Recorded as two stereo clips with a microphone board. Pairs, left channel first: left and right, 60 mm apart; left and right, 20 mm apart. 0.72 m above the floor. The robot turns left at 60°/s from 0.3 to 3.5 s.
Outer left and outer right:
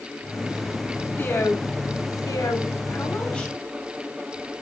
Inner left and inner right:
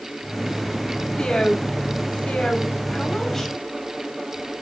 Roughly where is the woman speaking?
Behind left.